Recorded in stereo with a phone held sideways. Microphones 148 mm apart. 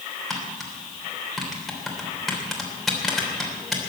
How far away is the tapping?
About 3 m.